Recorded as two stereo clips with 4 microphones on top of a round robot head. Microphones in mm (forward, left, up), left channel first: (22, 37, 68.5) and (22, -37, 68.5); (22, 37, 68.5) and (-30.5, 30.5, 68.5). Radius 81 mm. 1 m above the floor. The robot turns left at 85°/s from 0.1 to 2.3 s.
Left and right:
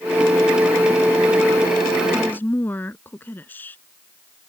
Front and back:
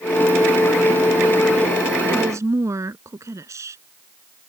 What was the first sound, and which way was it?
A woman speaking, straight behind.